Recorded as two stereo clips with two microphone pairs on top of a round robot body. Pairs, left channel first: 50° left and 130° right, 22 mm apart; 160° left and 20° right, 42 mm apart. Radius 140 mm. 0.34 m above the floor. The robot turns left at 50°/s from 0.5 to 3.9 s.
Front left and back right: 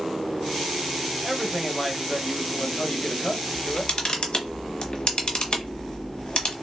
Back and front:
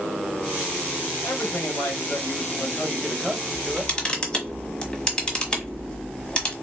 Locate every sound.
1.2 s a man speaking: 175° left, 1.7 m; by 4.0 s 45° left, 1.7 m
3.5 s a camera shutter: 110° left, 1.2 m; by 6.5 s 90° left, 1.2 m